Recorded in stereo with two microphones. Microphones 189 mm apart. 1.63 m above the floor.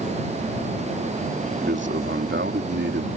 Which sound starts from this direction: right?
A man speaking, at 1.6 s.